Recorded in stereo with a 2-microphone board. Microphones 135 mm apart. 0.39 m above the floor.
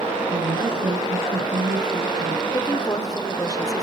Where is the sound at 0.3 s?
70° right (ahead or behind), 4.5 m.